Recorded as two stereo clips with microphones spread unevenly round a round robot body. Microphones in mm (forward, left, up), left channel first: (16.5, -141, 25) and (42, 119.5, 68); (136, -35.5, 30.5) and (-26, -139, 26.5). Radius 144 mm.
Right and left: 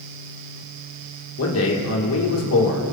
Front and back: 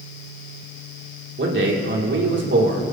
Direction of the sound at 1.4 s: 125° right.